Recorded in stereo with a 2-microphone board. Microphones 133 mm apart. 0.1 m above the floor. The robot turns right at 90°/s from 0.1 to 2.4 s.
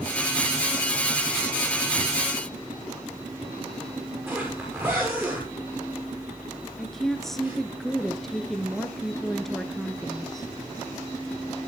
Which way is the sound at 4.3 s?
15° right (ahead or behind).